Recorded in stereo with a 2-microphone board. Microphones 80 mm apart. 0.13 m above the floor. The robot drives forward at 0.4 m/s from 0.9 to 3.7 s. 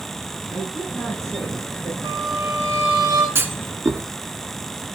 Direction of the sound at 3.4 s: 30° right (ahead or behind).